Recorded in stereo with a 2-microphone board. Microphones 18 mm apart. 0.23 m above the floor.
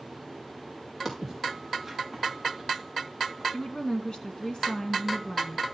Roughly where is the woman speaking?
Left.